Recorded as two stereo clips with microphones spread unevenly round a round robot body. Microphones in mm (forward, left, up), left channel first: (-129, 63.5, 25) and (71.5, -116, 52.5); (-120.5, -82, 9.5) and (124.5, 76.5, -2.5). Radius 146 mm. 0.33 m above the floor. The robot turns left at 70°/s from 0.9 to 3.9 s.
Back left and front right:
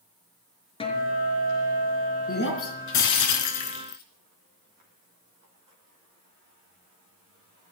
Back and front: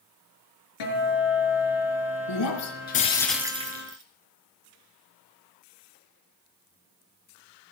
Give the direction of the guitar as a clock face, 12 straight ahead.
5 o'clock.